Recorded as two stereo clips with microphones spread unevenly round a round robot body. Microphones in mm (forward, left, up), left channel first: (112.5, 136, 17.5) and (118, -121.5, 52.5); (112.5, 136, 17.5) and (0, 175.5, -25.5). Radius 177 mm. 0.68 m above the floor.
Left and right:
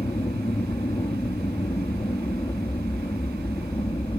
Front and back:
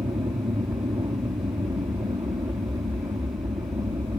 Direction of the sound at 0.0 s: 160° left.